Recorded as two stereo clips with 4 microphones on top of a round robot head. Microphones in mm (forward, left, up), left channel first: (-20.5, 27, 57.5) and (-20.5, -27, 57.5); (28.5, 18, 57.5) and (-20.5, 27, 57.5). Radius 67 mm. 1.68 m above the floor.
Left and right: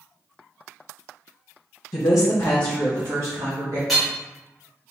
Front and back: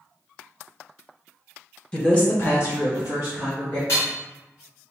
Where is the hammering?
Straight ahead, 1.0 m.